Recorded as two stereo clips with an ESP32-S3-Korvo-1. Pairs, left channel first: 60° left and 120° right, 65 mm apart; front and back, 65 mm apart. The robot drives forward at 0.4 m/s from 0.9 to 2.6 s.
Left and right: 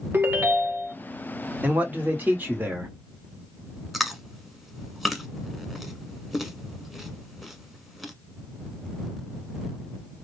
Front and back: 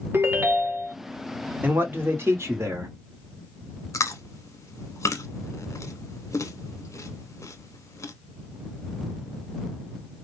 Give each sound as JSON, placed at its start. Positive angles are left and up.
{"t": 0.1, "sound": "a ringtone", "azimuth_deg": -155, "distance_m": 0.8}
{"t": 1.6, "sound": "a man speaking", "azimuth_deg": -160, "distance_m": 0.8}
{"t": 3.9, "sound": "chewing", "azimuth_deg": -30, "distance_m": 0.6}